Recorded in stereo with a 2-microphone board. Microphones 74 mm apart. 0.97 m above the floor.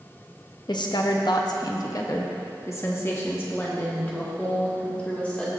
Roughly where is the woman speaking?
Left.